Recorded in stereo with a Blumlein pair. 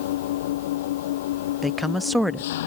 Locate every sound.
0.0 s an engine running: 55° left
1.6 s a woman speaking: straight ahead